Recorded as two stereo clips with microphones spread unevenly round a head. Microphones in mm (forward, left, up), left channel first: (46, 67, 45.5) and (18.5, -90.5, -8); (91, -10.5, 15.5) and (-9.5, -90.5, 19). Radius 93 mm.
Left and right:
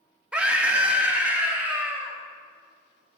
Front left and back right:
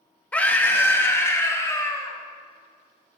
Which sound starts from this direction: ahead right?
A scream, at 0.3 s.